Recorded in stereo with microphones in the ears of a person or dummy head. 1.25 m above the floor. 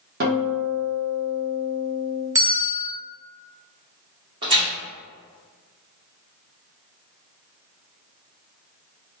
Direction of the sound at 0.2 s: 40° right (ahead or behind).